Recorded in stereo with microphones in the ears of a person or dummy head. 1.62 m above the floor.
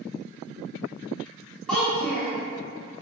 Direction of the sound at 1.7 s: 5° left (ahead or behind).